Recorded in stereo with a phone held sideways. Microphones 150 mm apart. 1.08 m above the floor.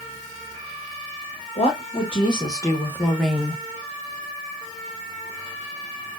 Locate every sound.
1.6 s a woman speaking: 45° left (ahead or behind), 1.6 m; by 3.6 s 15° right (ahead or behind), 1.0 m